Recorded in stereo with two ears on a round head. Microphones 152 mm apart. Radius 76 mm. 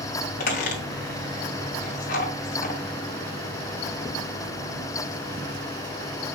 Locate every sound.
0.4 s a squeak: 55° left (ahead or behind), 3 m